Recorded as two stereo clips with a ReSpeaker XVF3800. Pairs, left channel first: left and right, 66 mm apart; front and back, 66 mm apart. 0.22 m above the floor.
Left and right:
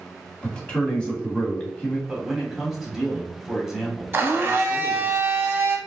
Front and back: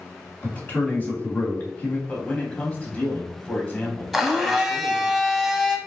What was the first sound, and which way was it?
A man speaking, 30° left.